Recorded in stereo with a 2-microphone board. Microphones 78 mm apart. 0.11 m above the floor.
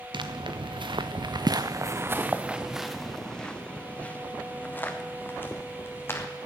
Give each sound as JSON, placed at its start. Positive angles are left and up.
{"t": 0.1, "sound": "footsteps", "side_deg": -80, "distance_m": 1.2}